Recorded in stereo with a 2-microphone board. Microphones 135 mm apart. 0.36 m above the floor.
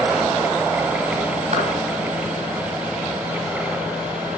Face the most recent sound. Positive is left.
turn(degrees=-60)  # may be behind; listen again after turning